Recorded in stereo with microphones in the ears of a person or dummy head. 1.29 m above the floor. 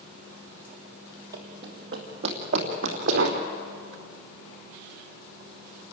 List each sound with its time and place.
1.3 s running footsteps: 25° right (ahead or behind), 2.5 m; by 3.4 s 50° right (ahead or behind), 3 m